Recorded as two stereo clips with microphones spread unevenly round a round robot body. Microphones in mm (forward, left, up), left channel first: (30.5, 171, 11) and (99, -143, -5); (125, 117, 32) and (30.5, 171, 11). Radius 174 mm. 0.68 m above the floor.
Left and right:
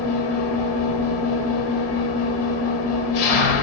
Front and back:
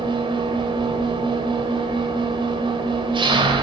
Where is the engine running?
105° left, 1.3 m.